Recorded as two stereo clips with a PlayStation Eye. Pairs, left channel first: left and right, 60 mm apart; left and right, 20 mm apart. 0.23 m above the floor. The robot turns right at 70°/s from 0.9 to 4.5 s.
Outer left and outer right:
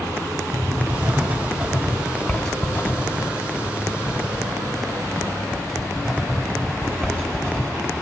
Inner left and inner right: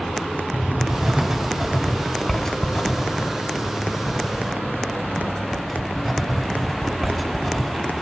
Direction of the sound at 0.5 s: 40° right (ahead or behind).